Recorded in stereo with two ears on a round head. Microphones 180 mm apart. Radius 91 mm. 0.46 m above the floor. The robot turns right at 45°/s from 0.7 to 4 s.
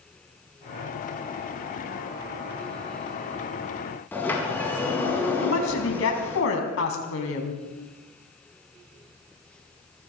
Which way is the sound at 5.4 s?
75° left (ahead or behind).